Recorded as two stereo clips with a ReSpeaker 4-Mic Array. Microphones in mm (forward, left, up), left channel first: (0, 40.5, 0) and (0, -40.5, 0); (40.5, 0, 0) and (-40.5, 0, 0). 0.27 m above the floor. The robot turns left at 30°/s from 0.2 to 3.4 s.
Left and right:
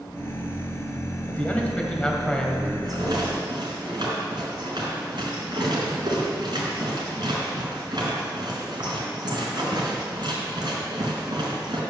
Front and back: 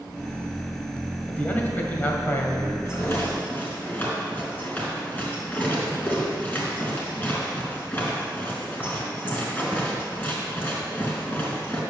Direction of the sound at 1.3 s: 50° left.